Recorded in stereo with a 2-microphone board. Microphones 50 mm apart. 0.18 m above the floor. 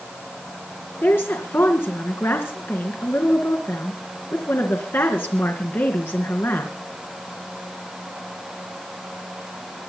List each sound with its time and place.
1.0 s a woman speaking: 55° left (ahead or behind), 3 m